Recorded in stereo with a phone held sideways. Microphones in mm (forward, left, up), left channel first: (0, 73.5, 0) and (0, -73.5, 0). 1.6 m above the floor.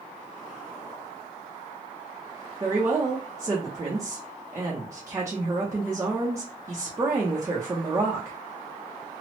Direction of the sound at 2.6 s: 20° right (ahead or behind).